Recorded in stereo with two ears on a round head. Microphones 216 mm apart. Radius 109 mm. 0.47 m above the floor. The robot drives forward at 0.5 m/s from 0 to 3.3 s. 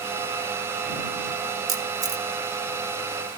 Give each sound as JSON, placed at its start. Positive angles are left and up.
{"t": 1.7, "sound": "a camera shutter", "side_deg": -15, "distance_m": 1.1}